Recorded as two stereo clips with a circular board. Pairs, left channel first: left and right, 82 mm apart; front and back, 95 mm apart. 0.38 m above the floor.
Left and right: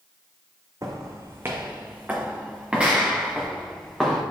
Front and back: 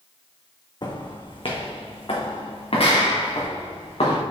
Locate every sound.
0.8 s footsteps: 40° right, 1.3 m; by 4.2 s 5° right, 3 m